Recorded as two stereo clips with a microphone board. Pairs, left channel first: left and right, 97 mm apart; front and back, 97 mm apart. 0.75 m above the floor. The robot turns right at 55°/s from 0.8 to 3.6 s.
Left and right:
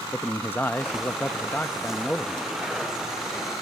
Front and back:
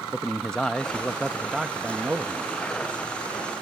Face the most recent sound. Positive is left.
turn(degrees=-135)